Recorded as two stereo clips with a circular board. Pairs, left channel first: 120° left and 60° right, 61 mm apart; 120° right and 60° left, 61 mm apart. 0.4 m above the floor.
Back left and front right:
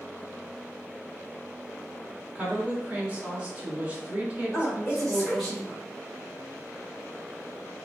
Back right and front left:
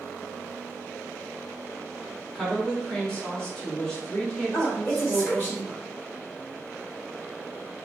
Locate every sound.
2.4 s a woman speaking: 55° right, 1.1 m
4.5 s a woman speaking: 150° right, 1.6 m